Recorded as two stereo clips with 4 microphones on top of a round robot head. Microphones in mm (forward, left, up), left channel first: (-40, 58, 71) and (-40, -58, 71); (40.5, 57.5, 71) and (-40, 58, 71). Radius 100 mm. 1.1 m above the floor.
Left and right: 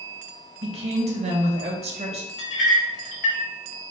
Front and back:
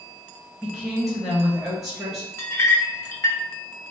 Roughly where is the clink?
Ahead left.